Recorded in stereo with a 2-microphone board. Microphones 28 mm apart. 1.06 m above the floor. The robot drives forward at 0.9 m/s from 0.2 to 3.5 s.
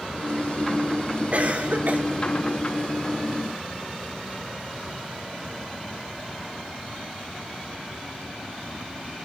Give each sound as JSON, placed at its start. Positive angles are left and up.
{"t": 1.3, "sound": "a cough", "side_deg": -50, "distance_m": 2.5}